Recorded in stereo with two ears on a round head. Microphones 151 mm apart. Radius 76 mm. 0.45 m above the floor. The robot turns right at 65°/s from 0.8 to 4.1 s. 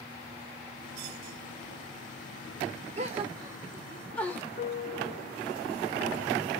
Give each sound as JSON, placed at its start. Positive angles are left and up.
{"t": 3.0, "sound": "a gasp", "side_deg": -40, "distance_m": 1.0}
{"t": 4.6, "sound": "a piano", "side_deg": 50, "distance_m": 1.9}